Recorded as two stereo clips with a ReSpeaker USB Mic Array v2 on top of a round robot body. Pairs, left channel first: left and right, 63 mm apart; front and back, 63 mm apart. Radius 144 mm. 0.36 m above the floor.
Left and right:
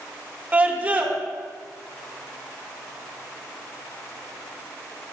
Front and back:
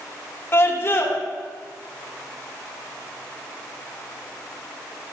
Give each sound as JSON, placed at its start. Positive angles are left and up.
{"t": 0.5, "sound": "a scream", "azimuth_deg": -30, "distance_m": 1.3}